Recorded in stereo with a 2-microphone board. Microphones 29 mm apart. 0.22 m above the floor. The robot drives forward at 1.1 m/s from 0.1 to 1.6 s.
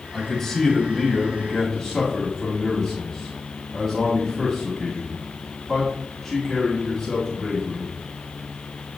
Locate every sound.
0.1 s a man speaking: 10° left (ahead or behind), 1.5 m